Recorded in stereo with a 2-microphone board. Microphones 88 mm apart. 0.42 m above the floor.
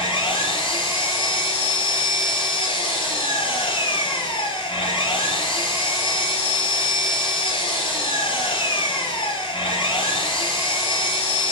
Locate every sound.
0.0 s an engine running: 75° left (ahead or behind), 4 m